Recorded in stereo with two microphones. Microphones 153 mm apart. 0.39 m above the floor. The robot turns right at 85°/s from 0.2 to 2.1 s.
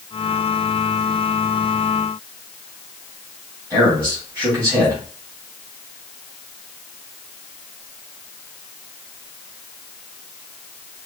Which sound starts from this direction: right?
A man speaking, at 3.7 s.